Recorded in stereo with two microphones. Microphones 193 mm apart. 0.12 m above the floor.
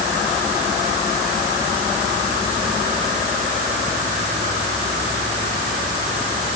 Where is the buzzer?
I don't hear a buzzer.